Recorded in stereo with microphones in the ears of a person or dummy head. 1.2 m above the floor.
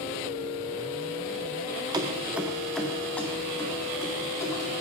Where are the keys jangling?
20° right (ahead or behind), 0.6 m; by 4.7 s 15° left (ahead or behind), 2 m.